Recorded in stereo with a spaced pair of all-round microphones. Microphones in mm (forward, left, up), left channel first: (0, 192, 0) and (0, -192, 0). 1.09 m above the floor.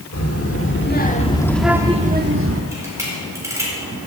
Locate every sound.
0.1 s a child speaking: 40° left (ahead or behind), 1.6 m; by 2.6 s 40° right (ahead or behind), 1.1 m
2.7 s a camera shutter: 10° right (ahead or behind), 4 m